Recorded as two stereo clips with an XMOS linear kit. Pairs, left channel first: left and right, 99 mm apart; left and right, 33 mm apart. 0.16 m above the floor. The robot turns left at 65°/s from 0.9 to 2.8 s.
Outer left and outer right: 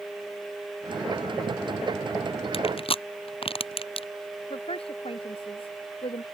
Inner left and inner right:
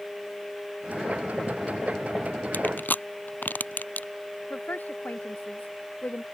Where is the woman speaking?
65° left (ahead or behind).